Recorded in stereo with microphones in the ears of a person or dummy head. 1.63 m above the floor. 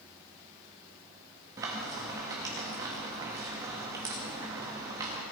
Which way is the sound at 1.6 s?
15° right (ahead or behind).